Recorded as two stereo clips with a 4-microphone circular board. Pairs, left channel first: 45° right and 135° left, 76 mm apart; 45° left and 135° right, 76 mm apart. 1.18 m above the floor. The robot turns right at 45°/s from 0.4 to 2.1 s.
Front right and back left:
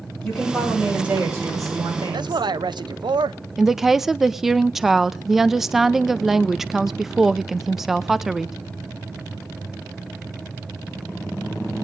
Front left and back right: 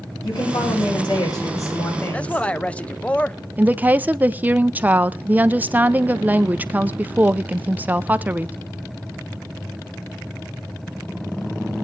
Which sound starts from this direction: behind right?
A woman speaking, at 3.6 s.